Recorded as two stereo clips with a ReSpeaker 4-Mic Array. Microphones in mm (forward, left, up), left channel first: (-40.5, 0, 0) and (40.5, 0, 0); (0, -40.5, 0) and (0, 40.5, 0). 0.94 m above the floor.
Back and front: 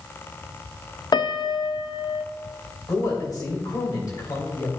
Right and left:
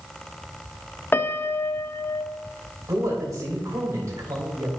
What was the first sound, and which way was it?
A piano, 155° right.